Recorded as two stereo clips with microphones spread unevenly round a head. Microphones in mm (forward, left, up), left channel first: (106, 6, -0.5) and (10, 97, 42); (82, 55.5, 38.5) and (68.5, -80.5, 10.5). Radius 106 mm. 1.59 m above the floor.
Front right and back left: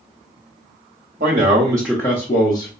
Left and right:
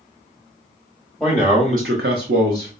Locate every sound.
1.2 s a man speaking: 170° left, 1.0 m; by 2.7 s 85° right, 1.0 m